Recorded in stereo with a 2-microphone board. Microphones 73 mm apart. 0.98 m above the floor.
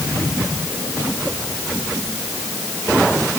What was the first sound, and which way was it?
Only background noise.